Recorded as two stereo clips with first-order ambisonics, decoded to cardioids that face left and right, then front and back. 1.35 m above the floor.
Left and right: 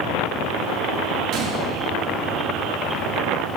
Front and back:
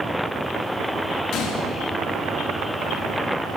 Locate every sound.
1.3 s a gunshot: 50° right, 2.5 m